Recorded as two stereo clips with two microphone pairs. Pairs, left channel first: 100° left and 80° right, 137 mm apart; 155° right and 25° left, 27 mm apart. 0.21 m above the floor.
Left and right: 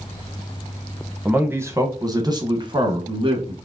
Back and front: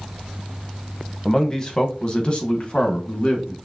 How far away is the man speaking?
About 1.0 m.